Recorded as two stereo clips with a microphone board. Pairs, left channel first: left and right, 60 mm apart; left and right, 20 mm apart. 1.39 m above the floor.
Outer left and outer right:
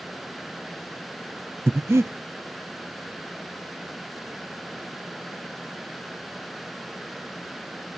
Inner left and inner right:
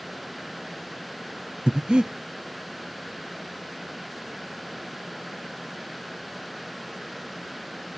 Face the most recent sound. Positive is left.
turn(degrees=-50)  # may be behind; listen again after turning